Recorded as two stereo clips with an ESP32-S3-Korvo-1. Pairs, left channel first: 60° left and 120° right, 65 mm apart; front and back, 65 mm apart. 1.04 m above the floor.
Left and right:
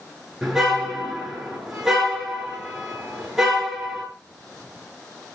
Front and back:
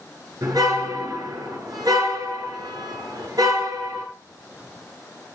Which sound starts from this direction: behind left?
A car horn, at 0.4 s.